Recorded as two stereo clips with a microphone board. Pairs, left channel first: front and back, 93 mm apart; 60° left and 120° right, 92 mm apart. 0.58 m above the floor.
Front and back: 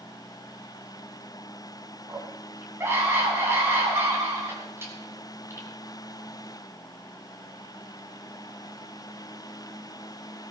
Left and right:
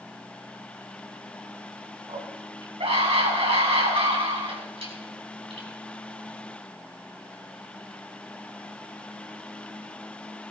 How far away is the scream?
About 6 m.